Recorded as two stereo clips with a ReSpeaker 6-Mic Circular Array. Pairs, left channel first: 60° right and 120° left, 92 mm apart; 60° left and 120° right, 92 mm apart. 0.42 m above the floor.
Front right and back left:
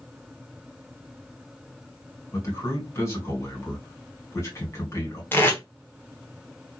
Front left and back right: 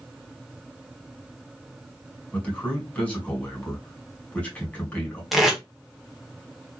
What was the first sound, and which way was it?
A man speaking, 10° right.